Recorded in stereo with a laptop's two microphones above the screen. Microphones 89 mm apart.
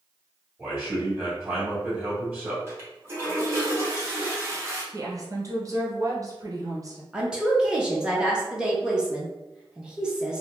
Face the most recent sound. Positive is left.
turn(degrees=-10)  # may be behind; listen again after turning